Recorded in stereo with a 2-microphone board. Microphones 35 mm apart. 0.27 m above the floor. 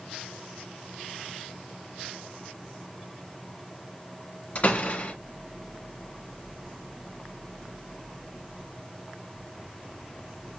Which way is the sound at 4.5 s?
40° left (ahead or behind).